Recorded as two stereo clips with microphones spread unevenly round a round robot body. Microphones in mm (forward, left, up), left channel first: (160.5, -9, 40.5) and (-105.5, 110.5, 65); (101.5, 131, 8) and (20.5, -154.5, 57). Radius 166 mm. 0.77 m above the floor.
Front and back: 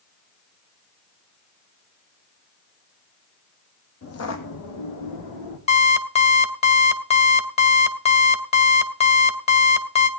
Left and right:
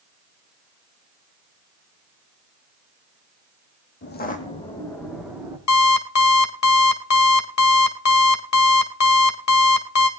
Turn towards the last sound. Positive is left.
turn(degrees=45)